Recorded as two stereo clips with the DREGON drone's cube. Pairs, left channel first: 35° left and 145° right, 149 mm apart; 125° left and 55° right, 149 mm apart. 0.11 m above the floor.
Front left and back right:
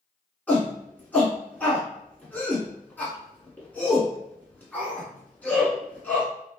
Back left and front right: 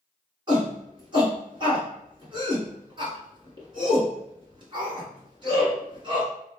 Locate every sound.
0.5 s a shout: 35° right, 1.3 m